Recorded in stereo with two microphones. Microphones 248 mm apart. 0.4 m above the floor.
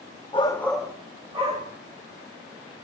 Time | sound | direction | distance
0.3 | a shout | 20° left (ahead or behind) | 0.9 m